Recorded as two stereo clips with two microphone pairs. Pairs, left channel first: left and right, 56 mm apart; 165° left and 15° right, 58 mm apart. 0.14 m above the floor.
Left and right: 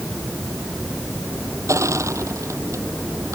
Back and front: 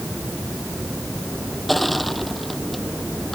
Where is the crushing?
110° right.